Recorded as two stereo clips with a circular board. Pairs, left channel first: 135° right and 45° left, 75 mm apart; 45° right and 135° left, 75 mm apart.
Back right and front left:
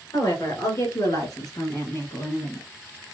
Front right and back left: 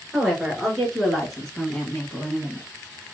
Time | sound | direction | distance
0.1 | a woman speaking | 140° right | 2.5 m